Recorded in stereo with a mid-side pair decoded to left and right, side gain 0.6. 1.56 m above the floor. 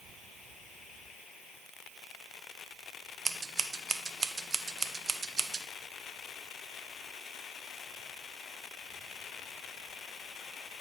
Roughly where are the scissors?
Ahead right.